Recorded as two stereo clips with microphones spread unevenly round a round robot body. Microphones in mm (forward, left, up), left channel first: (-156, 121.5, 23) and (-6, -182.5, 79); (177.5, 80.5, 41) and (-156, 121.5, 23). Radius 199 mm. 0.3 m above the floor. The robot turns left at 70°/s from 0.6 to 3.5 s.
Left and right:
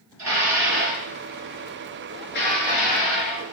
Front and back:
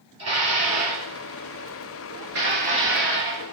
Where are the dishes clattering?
110° right, 4 m; by 3.4 s 55° left, 4 m.